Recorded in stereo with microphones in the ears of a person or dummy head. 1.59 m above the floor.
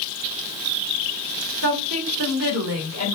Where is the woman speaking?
65° right (ahead or behind), 1.4 m.